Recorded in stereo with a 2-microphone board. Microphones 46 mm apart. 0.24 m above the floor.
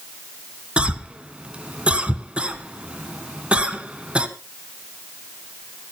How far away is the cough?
About 1.9 m.